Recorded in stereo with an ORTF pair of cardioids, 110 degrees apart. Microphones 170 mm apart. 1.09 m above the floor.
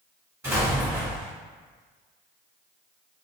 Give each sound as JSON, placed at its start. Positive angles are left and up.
{"t": 0.4, "sound": "an explosion", "azimuth_deg": -15, "distance_m": 1.9}